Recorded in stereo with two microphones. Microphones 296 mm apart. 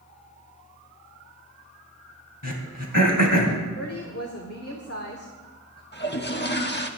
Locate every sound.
2.4 s throat clearing: 85° left, 3 m
3.8 s a woman speaking: 55° left (ahead or behind), 1.8 m
5.9 s a toilet flushing: 35° left (ahead or behind), 1.3 m